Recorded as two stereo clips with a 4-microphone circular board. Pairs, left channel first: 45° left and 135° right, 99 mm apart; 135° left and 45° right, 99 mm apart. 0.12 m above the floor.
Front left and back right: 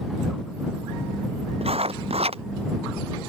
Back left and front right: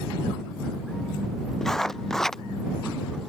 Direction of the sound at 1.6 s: 140° right.